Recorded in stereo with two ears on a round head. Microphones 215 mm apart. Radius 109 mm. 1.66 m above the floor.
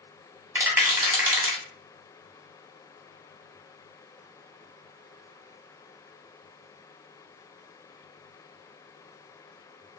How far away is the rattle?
About 1.2 m.